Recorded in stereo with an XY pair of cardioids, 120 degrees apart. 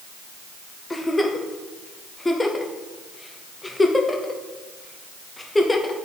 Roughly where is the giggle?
Ahead.